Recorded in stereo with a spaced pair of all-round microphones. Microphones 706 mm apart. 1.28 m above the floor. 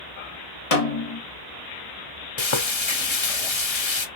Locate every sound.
0.7 s a snare drum: 55° left (ahead or behind), 1.1 m
2.4 s frying: 45° left (ahead or behind), 0.7 m